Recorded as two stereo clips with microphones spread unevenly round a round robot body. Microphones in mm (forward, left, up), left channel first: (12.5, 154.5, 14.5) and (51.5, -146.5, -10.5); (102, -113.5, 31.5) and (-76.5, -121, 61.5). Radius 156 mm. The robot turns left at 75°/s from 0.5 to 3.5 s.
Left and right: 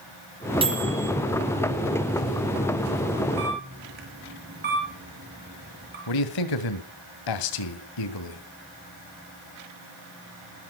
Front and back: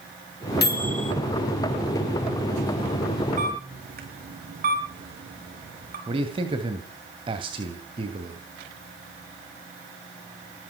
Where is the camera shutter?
130° right, 5.5 m; by 6.0 s 140° right, 5.5 m.